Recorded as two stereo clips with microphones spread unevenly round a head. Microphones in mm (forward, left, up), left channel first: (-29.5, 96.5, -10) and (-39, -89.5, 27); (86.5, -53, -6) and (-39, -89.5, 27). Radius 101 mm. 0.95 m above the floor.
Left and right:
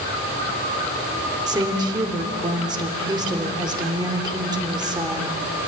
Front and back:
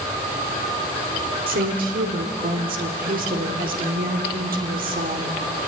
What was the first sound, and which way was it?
A woman speaking, 165° right.